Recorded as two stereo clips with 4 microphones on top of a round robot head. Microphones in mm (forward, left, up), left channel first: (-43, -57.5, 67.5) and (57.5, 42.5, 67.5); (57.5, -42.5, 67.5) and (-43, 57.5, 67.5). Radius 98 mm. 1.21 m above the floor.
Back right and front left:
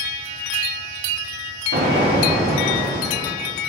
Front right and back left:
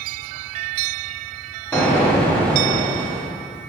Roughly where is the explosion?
Ahead left.